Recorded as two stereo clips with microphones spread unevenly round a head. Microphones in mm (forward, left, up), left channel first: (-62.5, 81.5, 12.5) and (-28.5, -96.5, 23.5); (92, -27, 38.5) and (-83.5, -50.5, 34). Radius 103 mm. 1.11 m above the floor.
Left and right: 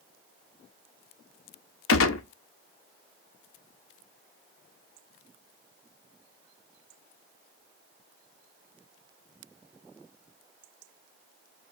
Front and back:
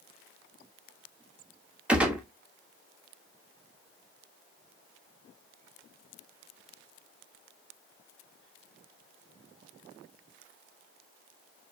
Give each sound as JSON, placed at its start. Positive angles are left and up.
{"t": 1.9, "sound": "a gunshot", "azimuth_deg": 105, "distance_m": 1.0}